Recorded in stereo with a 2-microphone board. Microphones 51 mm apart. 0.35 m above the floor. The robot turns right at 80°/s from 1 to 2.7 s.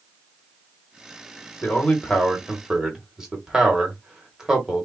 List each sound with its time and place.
1.6 s a man speaking: 35° left (ahead or behind), 1.2 m; by 4.9 s 10° right (ahead or behind), 1.2 m